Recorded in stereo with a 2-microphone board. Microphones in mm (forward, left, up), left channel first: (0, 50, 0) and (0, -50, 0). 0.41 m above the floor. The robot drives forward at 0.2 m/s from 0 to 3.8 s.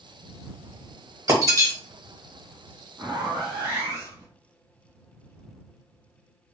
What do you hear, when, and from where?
1.3 s breaking glass: 35° right (ahead or behind), 0.9 m
3.0 s a zipper: 35° right (ahead or behind), 1.1 m; by 4.3 s 30° right (ahead or behind), 1.1 m